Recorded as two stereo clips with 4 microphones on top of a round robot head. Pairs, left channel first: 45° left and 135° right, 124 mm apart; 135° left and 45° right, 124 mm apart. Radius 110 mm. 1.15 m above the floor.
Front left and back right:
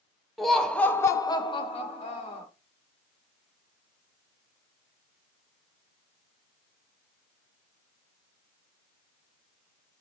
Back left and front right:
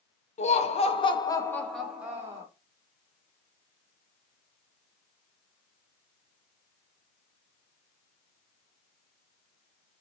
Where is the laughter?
135° left, 0.9 m; by 2.5 s 20° left, 0.9 m.